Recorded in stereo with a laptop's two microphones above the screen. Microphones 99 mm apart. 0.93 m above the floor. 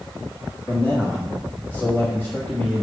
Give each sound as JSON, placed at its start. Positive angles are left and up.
{"t": 0.7, "sound": "a man speaking", "side_deg": 25, "distance_m": 1.5}